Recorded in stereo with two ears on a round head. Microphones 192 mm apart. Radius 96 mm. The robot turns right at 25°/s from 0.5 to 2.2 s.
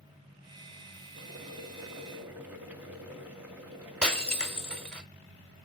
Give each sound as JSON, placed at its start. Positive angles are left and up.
{"t": 1.2, "sound": "boiling", "side_deg": -30, "distance_m": 3.0}
{"t": 4.0, "sound": "breaking glass", "side_deg": 5, "distance_m": 1.5}